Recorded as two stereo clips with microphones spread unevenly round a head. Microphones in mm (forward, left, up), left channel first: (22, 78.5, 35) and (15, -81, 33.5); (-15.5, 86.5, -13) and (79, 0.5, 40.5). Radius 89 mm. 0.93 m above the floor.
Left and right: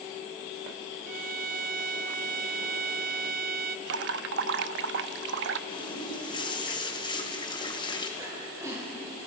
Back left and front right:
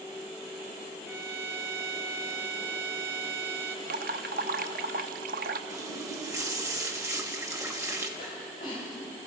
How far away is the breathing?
About 5 m.